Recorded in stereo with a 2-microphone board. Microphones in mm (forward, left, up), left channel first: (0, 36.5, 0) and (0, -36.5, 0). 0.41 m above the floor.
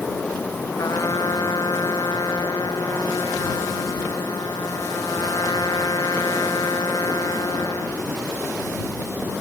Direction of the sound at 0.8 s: 60° left (ahead or behind).